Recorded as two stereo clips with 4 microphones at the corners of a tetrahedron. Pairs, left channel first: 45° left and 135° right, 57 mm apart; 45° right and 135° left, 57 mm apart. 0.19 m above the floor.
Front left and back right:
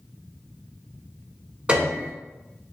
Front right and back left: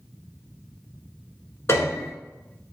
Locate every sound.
1.7 s a piano: 70° right, 1.0 m